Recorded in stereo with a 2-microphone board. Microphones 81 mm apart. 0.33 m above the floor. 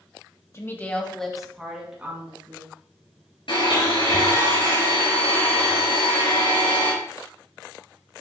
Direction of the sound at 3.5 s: 80° left.